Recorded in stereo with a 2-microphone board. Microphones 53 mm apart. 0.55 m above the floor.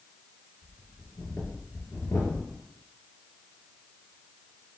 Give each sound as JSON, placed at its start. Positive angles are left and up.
{"t": 0.6, "sound": "breathing", "side_deg": 70, "distance_m": 2.0}